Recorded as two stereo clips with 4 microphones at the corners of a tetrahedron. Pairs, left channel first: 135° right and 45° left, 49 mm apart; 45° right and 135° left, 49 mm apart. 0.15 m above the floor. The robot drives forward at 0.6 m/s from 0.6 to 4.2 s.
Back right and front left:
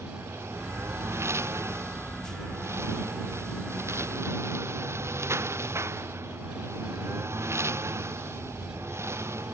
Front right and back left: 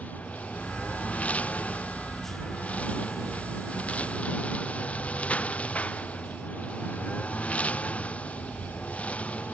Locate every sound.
0.0 s a lawn mower: 15° left; by 9.5 s 20° left